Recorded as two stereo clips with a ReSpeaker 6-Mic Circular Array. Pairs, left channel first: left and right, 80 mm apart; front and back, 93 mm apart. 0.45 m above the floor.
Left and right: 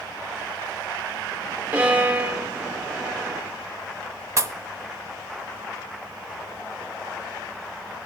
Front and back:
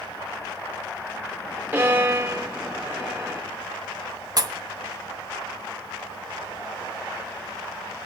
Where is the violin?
140° right, 1.3 m.